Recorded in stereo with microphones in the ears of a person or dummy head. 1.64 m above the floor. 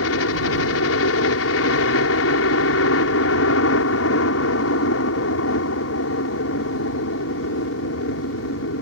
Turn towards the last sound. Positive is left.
turn(degrees=75)  # may be behind; listen again after turning